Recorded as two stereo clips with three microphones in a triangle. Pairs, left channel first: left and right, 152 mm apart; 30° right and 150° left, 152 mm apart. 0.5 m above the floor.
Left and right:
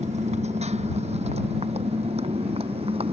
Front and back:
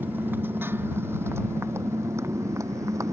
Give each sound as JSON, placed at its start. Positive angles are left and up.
{"t": 0.0, "sound": "a motorcycle", "azimuth_deg": -135}